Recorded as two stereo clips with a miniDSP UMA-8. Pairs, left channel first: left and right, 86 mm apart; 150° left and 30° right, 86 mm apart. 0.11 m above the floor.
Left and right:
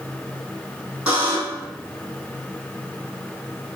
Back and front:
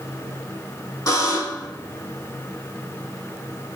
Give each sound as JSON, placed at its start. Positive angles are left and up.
{"t": 1.1, "sound": "a buzzer", "azimuth_deg": -165, "distance_m": 1.7}